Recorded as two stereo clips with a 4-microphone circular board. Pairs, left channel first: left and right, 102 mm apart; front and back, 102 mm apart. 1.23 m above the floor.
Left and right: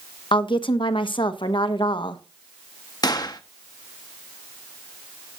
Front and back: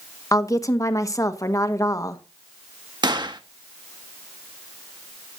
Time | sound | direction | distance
0.3 | a woman speaking | 55° left | 1.3 m
3.0 | a gunshot | 140° left | 1.2 m